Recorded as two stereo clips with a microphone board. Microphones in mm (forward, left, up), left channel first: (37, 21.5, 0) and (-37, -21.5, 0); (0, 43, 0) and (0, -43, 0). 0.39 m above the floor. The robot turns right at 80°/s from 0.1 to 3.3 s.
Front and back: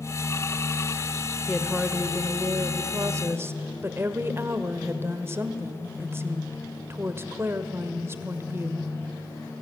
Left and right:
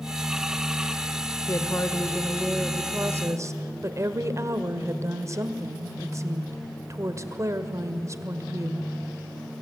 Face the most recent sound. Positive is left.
turn(degrees=-110)